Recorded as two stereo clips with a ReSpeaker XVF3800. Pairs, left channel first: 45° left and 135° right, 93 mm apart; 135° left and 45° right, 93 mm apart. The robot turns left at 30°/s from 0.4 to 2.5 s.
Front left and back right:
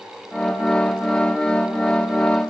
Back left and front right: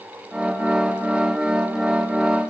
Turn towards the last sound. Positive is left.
No sound to turn to.